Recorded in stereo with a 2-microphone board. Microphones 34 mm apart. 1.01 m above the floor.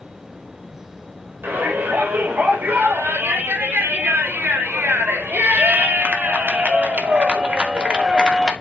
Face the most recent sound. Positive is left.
turn(degrees=-20)  # may be behind; listen again after turning